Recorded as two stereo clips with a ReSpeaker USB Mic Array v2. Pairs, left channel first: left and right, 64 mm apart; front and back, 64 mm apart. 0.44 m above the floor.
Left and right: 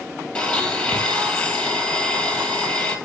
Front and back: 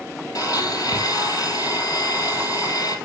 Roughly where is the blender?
Ahead.